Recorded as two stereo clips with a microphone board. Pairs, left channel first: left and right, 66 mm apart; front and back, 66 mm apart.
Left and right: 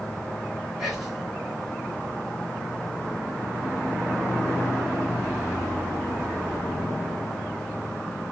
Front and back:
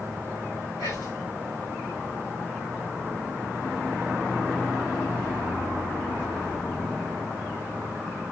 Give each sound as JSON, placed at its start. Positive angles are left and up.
{"t": 0.8, "sound": "whispering", "azimuth_deg": 0, "distance_m": 1.5}